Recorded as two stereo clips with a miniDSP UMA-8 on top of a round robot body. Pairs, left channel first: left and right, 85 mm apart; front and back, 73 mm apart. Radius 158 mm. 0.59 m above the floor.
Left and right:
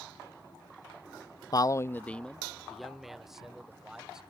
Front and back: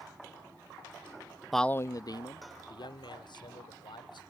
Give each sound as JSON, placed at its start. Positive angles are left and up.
{"t": 1.5, "sound": "a man speaking", "azimuth_deg": 95}